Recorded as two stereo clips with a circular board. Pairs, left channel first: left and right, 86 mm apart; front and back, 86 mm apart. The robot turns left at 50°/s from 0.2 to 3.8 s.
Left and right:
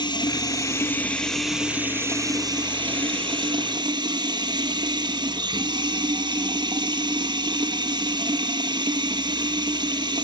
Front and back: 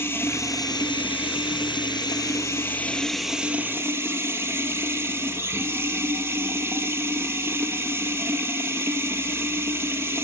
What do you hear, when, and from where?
0.0 s running water: 60° left, 2 m; by 10.2 s 120° right, 2 m